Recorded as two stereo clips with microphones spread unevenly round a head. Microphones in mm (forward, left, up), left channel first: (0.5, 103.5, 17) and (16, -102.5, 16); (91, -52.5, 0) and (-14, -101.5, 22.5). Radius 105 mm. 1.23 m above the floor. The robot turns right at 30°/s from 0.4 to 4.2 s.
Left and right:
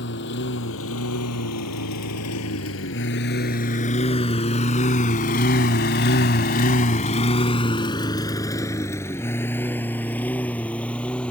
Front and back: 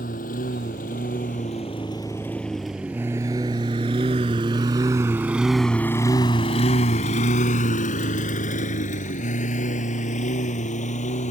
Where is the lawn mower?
60° left; by 11.3 s 10° left.